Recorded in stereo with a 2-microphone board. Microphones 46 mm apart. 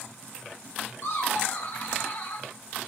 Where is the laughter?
80° left, 3 m; by 2.5 s 70° left (ahead or behind), 2 m.